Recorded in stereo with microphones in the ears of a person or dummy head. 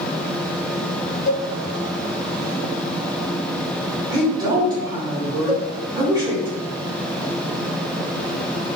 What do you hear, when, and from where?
1.3 s a cowbell: 45° left (ahead or behind), 0.6 m
4.1 s a woman speaking: 25° right (ahead or behind), 0.8 m
5.5 s a cowbell: 15° right (ahead or behind), 0.6 m